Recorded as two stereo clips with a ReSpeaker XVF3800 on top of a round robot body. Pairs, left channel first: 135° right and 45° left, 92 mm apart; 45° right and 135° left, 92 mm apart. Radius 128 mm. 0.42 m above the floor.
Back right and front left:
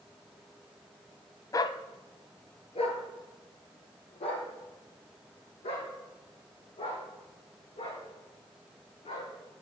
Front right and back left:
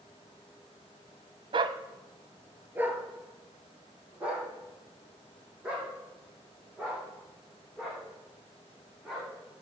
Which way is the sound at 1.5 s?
170° left.